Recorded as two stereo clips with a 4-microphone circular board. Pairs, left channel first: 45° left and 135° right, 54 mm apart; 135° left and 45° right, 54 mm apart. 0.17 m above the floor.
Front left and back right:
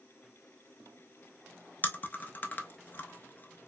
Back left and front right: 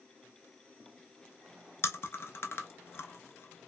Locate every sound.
1.8 s chewing: 100° left, 0.5 m